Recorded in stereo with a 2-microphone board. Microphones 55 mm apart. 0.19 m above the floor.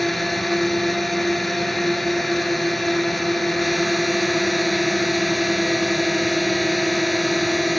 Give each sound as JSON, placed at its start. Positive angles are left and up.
{"t": 0.0, "sound": "a drone", "side_deg": 0}